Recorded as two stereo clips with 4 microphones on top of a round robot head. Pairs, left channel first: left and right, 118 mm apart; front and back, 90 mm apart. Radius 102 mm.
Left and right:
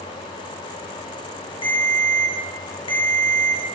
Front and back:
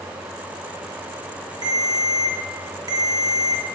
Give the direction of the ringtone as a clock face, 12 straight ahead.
8 o'clock.